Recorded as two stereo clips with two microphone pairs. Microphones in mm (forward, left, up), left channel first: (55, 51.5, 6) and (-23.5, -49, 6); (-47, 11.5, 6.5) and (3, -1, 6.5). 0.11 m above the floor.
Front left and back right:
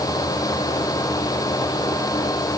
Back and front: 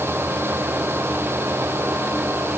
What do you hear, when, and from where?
Only background noise.